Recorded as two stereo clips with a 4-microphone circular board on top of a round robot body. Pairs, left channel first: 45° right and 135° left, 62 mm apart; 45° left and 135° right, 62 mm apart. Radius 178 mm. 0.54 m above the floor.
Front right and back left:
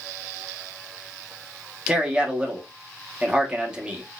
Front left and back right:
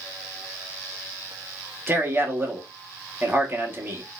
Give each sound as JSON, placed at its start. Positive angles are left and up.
{"t": 1.9, "sound": "a man speaking", "azimuth_deg": -160, "distance_m": 1.3}